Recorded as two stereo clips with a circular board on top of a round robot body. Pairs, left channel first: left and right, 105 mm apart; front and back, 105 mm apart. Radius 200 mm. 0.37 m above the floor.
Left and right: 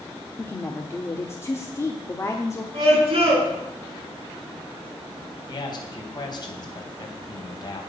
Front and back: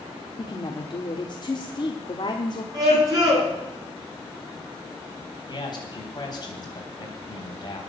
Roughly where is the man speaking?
Ahead left.